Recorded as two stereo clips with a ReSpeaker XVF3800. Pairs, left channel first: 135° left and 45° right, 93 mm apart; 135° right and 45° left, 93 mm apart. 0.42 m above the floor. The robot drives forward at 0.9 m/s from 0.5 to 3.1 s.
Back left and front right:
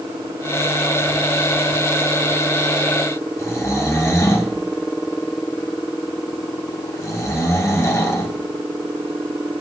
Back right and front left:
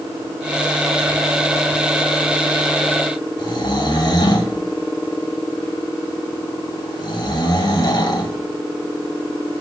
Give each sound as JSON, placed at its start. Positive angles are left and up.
{"t": 3.4, "sound": "snoring", "azimuth_deg": -170, "distance_m": 1.8}